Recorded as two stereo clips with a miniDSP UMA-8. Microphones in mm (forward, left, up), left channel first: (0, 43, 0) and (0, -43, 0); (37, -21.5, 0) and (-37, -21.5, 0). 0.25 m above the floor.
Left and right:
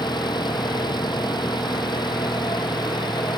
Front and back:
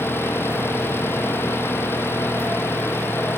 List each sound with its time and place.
0.0 s an engine running: 60° left